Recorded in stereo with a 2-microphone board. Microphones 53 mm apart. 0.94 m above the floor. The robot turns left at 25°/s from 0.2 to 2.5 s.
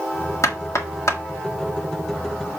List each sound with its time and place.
0.4 s knocking: 80° left, 1.5 m; by 1.2 s 70° left (ahead or behind), 1.5 m